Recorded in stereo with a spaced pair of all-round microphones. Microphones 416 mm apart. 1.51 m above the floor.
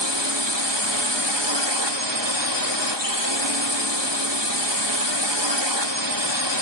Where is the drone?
80° right.